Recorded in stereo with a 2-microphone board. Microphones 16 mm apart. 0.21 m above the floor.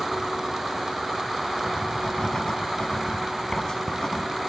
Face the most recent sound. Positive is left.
turn(degrees=45)  # may be behind; listen again after turning